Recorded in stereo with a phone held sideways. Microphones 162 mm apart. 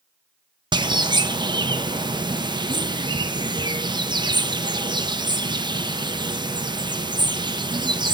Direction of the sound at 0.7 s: 30° right (ahead or behind).